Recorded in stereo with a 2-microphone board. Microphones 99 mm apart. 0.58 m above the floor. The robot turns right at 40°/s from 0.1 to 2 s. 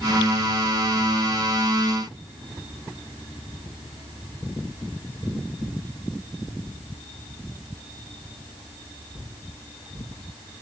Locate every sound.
Only background noise.